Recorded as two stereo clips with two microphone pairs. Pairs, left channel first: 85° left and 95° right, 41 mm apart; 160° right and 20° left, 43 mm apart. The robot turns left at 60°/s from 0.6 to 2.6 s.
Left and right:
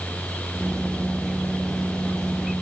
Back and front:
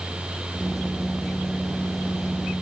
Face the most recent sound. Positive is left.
No sound to turn to.